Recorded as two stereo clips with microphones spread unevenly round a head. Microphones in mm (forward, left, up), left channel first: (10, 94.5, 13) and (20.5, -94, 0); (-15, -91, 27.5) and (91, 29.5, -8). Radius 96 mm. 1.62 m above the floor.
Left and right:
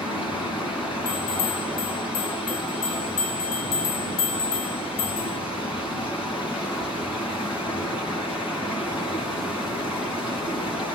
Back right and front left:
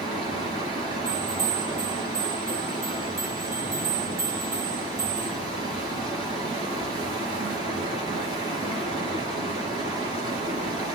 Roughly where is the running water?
Behind.